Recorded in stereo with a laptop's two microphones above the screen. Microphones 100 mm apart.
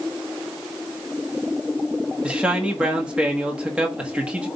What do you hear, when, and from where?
2.2 s a man speaking: 10° right (ahead or behind), 1.5 m